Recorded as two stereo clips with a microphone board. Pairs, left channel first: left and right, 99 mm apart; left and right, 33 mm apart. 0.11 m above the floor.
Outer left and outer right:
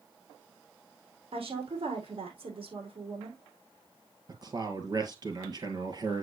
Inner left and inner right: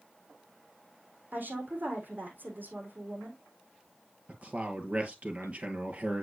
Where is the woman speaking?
65° right (ahead or behind), 4 m.